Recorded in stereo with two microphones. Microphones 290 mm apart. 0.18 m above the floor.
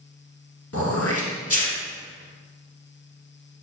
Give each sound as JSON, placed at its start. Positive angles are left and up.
{"t": 0.7, "sound": "throat clearing", "side_deg": 55, "distance_m": 1.9}